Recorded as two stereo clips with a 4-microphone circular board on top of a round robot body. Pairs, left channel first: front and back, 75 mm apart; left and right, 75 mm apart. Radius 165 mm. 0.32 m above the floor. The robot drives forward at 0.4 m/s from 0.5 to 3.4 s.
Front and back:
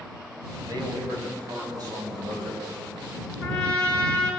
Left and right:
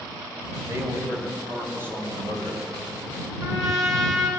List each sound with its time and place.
0.7 s a man speaking: 145° right, 3 m; by 2.6 s 155° right, 3.5 m
3.4 s a trumpet: 135° right, 3.5 m